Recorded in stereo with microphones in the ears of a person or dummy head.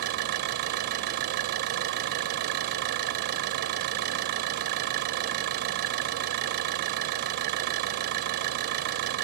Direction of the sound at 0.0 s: 55° right (ahead or behind).